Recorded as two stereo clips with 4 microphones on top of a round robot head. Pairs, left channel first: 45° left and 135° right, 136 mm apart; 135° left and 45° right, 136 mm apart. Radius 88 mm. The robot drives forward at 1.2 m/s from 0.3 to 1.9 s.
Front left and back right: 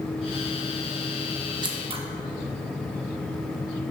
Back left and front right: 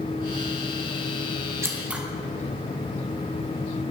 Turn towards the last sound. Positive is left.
turn(degrees=-120)